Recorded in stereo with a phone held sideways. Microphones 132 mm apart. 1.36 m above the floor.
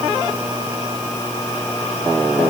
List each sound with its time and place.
Only background noise.